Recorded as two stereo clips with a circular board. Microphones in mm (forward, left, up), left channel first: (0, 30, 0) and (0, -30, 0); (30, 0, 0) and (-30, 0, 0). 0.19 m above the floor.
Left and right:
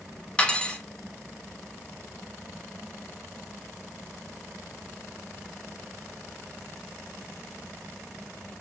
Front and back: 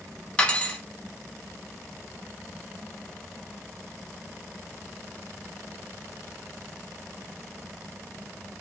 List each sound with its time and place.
0.4 s cutlery clinking: 45° left, 0.6 m